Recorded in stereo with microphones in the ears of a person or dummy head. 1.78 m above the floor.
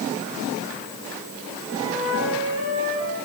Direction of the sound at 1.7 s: 70° right (ahead or behind).